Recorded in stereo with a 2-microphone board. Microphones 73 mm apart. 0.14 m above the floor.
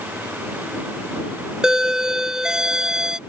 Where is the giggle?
I don't hear a giggle.